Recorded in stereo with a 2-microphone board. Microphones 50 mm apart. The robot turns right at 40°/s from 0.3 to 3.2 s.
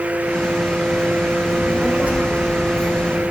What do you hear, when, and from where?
1.5 s a child speaking: 170° right, 4 m; by 3.3 s 100° right, 4 m